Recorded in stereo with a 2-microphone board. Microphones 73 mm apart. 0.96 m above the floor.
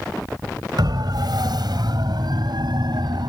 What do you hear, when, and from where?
0.8 s a siren: 70° right (ahead or behind); by 3.3 s 75° right (ahead or behind)